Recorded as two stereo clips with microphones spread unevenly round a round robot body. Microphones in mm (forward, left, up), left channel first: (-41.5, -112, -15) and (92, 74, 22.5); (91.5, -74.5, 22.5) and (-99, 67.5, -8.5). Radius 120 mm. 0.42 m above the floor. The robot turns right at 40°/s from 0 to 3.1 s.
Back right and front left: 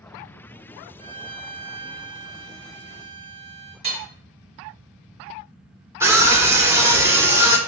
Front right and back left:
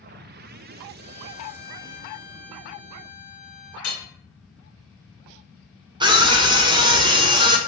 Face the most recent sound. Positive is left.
turn(degrees=140)